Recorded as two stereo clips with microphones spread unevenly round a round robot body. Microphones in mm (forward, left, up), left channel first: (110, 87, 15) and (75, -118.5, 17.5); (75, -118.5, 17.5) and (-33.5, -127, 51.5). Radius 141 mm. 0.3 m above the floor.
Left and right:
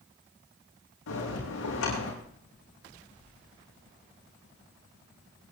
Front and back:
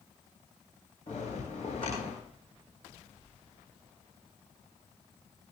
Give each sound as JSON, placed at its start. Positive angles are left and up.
{"t": 1.1, "sound": "a bell", "azimuth_deg": 70, "distance_m": 9.0}